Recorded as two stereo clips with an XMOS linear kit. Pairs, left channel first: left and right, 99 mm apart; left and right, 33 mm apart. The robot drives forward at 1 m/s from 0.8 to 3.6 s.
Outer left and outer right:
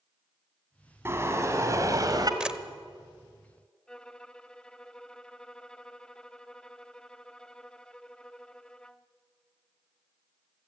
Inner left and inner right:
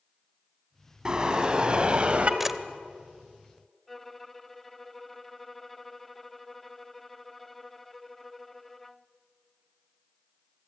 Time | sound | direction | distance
1.1 | a car horn | 25° right (ahead or behind) | 3 m
2.4 | a camera shutter | 10° right (ahead or behind) | 0.8 m
3.9 | a violin | 10° left (ahead or behind) | 0.6 m